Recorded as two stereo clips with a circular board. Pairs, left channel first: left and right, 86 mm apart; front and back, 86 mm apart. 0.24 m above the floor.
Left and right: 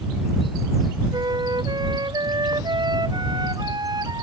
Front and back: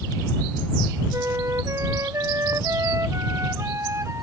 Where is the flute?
125° right.